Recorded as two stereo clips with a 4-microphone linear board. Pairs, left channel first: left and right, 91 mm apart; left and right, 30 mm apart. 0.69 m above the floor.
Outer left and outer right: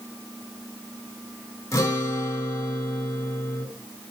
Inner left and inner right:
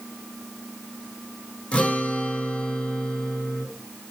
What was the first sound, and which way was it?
A guitar, 35° left (ahead or behind).